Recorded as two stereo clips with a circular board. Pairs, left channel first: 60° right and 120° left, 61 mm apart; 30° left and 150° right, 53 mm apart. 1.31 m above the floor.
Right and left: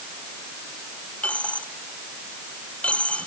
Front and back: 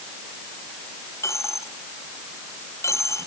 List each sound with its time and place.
1.2 s a dropped coin: 10° left